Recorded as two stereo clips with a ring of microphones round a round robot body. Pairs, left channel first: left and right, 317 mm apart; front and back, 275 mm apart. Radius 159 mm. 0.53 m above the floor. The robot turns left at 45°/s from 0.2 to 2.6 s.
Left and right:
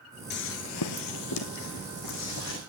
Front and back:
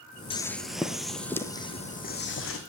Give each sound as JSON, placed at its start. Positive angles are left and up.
{"t": 0.3, "sound": "footsteps", "azimuth_deg": 55, "distance_m": 0.5}